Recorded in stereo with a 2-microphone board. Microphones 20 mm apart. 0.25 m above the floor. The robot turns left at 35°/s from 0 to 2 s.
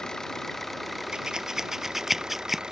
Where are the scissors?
40° right (ahead or behind); by 2.6 s 10° right (ahead or behind).